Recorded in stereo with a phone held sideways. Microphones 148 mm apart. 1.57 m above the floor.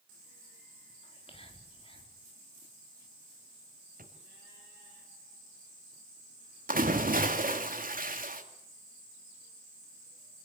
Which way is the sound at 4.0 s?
75° right (ahead or behind).